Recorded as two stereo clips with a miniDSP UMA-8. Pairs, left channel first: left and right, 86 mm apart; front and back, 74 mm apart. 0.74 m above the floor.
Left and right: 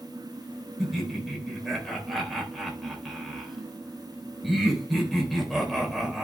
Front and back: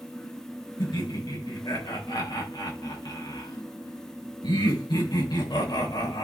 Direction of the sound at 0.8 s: Straight ahead.